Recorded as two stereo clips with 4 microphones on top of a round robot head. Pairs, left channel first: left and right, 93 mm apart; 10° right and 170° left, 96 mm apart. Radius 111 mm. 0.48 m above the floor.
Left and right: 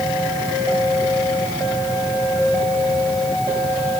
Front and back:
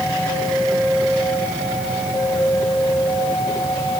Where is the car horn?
I don't hear a car horn.